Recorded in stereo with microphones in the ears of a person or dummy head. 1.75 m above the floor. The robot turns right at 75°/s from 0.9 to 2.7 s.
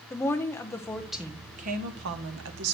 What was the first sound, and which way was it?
A woman speaking, 165° left.